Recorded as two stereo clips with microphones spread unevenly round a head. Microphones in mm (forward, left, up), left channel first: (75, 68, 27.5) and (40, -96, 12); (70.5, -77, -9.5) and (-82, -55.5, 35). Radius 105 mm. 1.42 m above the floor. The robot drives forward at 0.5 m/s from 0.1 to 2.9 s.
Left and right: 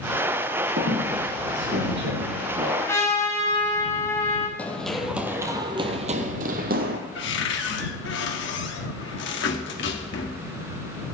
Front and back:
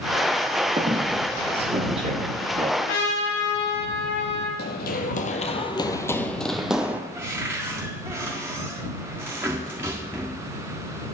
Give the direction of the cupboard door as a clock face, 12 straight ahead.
9 o'clock.